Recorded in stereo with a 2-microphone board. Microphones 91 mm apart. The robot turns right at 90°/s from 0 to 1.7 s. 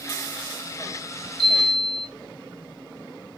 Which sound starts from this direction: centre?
A chime, at 1.4 s.